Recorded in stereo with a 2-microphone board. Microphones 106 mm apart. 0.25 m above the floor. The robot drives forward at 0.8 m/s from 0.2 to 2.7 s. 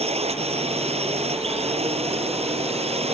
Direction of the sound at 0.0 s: 75° right (ahead or behind).